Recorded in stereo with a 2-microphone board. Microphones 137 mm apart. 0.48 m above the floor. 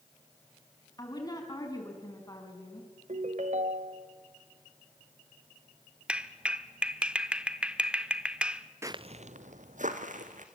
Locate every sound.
1.0 s a woman speaking: 30° left (ahead or behind), 5 m
3.1 s a ringtone: 65° right (ahead or behind), 1.4 m
6.1 s a clap: 10° right (ahead or behind), 0.9 m
8.8 s footsteps: 20° right (ahead or behind), 0.5 m; by 10.4 s 75° right (ahead or behind), 2.5 m